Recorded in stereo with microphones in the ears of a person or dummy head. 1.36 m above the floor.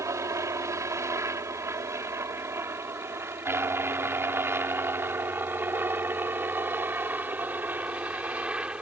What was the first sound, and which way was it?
A helicopter, 20° right (ahead or behind).